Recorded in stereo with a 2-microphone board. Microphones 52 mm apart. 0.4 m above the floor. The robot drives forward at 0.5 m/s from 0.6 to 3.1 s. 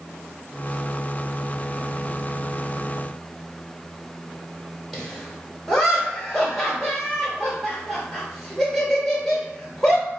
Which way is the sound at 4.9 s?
5° left (ahead or behind).